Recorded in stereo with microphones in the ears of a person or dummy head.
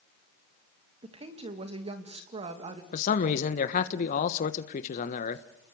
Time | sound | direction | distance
1.0 | a woman speaking | 30° right (ahead or behind) | 2.5 m
2.9 | a man speaking | 50° left (ahead or behind) | 1.3 m